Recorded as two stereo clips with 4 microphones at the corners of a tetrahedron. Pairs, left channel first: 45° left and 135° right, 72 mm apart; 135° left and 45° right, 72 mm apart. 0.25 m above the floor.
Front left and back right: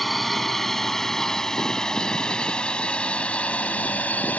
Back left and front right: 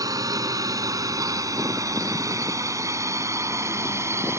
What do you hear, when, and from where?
0.0 s a drone: 45° right; by 4.4 s 15° right